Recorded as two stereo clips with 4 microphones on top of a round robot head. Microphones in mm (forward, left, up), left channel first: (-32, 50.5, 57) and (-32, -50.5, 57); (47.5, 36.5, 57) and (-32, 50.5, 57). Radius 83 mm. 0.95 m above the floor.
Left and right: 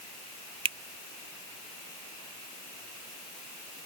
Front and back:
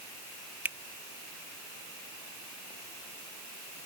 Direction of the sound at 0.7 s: 115° right.